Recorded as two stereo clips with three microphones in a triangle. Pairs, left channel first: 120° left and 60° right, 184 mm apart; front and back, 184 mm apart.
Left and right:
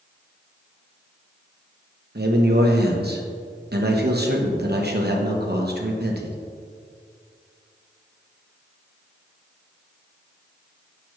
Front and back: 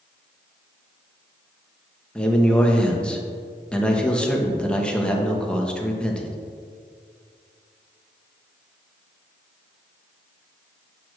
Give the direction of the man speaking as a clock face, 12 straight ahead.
3 o'clock.